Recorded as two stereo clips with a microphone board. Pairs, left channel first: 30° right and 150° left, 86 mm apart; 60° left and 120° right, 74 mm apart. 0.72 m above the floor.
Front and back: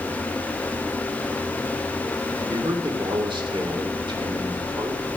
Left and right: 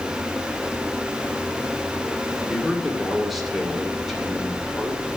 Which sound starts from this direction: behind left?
A man speaking, at 2.4 s.